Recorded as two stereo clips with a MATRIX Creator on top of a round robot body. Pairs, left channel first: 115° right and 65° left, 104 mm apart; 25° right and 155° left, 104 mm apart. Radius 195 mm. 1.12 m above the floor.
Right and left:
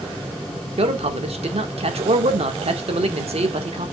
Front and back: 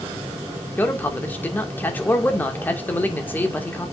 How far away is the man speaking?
About 1.9 m.